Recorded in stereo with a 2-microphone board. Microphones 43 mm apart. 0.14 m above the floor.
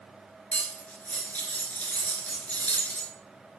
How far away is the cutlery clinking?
About 1.4 m.